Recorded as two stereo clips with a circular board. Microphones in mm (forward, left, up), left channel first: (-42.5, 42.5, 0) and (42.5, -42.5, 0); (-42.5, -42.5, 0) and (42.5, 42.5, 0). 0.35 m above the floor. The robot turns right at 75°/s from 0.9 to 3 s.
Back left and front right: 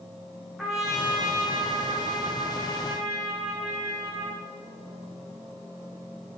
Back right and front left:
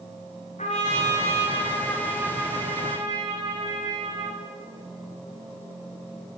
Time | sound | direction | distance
0.6 | a trumpet | 135° right | 6 m